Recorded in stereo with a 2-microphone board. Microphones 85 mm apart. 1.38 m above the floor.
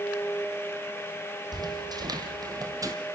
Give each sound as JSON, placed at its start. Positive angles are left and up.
{"t": 1.5, "sound": "footsteps", "side_deg": -55, "distance_m": 2.5}